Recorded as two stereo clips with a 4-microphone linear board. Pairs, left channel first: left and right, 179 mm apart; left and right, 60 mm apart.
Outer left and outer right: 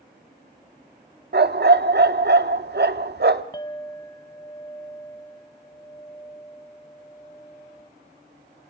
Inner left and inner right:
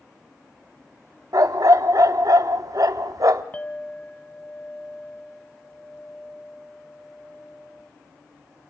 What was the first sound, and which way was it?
A dog barking, 70° right (ahead or behind).